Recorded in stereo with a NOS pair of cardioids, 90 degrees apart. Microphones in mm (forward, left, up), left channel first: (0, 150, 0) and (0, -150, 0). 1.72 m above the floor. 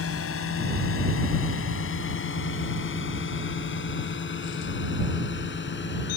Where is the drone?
50° left; by 6.2 s 40° left.